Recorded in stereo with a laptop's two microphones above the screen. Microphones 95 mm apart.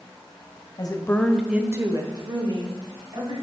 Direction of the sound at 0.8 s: 45° left (ahead or behind).